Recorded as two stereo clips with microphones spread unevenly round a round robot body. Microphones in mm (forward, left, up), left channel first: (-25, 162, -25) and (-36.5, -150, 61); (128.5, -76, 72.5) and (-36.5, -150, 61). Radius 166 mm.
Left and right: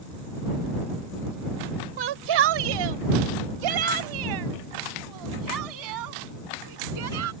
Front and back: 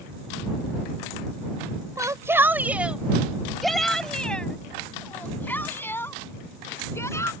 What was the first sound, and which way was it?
A shout, 85° right.